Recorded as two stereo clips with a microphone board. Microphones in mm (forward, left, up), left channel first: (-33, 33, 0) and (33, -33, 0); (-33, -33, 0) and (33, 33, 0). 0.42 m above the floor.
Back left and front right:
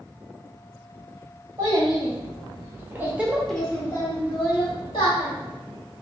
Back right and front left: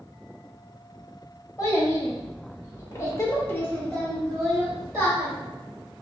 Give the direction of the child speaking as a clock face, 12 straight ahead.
3 o'clock.